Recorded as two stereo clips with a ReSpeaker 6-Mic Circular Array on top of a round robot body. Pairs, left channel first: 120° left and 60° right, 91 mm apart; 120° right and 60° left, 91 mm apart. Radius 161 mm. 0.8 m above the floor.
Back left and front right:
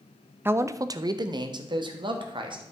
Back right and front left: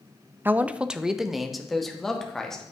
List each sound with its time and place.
0.5 s a man speaking: straight ahead, 0.6 m; by 2.7 s 35° right, 1.7 m